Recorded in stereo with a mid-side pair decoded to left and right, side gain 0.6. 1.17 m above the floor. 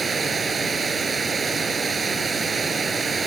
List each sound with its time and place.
0.0 s running water: 30° right